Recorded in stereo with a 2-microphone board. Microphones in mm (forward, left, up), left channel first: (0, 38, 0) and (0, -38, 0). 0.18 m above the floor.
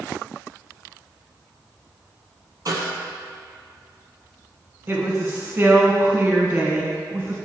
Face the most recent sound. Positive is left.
turn(degrees=-35)  # may be behind; listen again after turning